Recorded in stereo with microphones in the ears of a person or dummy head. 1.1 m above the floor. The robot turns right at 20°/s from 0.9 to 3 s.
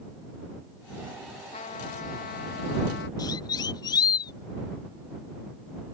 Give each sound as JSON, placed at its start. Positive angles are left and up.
{"t": 1.5, "sound": "a trumpet", "side_deg": 40}
{"t": 3.2, "sound": "a siren", "side_deg": 25}